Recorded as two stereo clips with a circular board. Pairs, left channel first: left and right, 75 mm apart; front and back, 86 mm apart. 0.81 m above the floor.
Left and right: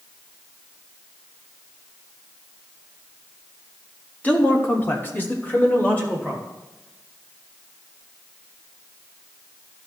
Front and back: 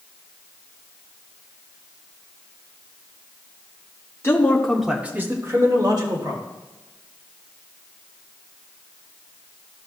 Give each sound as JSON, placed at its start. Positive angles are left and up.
{"t": 4.2, "sound": "a man speaking", "azimuth_deg": 35, "distance_m": 1.3}